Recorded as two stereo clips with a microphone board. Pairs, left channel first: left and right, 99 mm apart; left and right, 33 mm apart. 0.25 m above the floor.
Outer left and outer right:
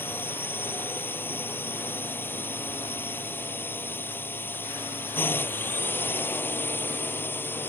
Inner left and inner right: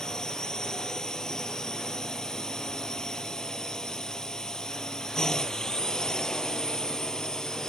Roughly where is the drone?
Left.